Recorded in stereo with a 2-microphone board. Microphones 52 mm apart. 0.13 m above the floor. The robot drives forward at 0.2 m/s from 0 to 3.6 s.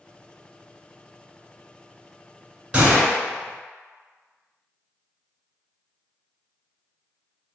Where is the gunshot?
20° right (ahead or behind), 1.4 m.